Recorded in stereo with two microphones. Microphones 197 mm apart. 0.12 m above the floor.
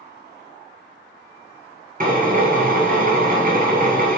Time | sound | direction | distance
2.0 | a drill | 45° right (ahead or behind) | 0.9 m